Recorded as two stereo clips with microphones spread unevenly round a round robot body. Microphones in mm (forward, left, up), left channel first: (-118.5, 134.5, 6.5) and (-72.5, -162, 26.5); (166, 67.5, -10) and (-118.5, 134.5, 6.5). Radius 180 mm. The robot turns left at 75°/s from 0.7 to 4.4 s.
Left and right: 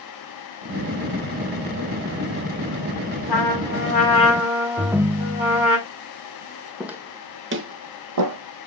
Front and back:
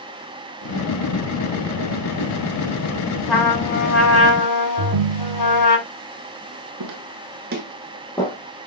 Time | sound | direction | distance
3.3 | a trumpet | 80° left | 5 m
4.8 | a ringtone | 165° right | 0.5 m
6.8 | footsteps | 170° right | 1.9 m